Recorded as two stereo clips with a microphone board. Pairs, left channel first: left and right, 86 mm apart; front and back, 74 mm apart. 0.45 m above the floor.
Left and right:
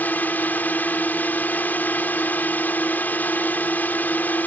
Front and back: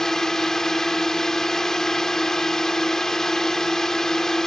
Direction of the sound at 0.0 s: 75° left.